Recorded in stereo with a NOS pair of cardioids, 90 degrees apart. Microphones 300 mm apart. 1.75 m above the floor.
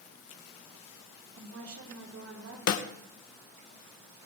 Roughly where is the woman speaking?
Ahead right.